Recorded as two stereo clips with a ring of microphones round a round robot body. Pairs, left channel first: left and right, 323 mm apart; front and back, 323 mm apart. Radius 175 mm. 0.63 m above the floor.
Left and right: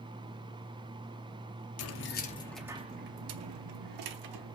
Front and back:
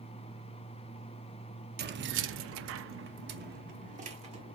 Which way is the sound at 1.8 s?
125° left.